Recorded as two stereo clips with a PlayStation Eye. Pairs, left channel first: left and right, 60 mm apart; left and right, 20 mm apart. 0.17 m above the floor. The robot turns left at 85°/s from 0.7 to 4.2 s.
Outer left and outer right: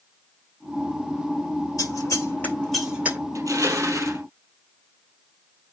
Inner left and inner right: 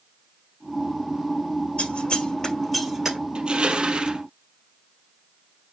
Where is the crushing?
65° right, 2.5 m; by 4.2 s 135° right, 2.5 m.